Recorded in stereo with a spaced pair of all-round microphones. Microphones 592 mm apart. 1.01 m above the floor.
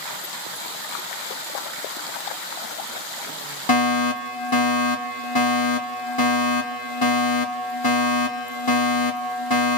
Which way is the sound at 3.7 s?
35° left (ahead or behind).